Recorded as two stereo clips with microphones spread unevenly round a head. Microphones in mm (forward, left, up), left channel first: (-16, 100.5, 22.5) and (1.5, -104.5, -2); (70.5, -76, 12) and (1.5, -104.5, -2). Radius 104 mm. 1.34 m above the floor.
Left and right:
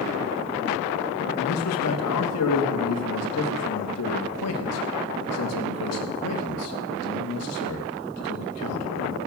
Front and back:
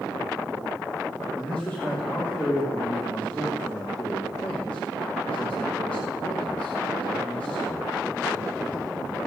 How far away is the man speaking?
About 2 m.